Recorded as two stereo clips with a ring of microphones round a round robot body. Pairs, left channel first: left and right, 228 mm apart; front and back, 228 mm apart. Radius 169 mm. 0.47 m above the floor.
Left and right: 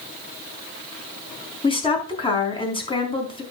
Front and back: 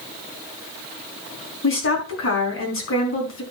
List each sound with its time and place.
1.6 s a woman speaking: 25° left, 4.5 m